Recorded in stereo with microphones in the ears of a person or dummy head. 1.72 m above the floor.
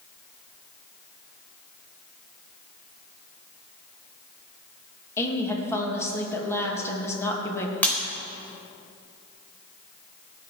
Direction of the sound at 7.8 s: 10° left (ahead or behind).